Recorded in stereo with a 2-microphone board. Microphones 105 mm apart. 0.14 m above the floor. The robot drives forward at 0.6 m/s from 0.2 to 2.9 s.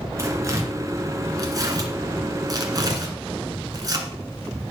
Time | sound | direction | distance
0.2 | tearing paper | 30° right (ahead or behind) | 2.5 m